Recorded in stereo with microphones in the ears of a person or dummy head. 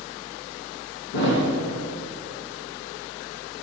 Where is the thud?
55° left (ahead or behind), 1.9 m.